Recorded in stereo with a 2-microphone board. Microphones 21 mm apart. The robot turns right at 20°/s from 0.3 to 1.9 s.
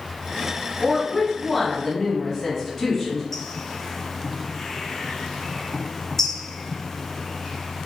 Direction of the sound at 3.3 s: 15° left (ahead or behind).